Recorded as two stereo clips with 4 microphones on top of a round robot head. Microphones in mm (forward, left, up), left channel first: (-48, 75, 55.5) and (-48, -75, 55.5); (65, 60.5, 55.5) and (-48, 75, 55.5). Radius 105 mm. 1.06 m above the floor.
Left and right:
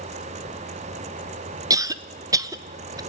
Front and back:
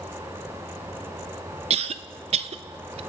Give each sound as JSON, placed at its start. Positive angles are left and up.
{"t": 1.7, "sound": "a cough", "azimuth_deg": -155, "distance_m": 1.0}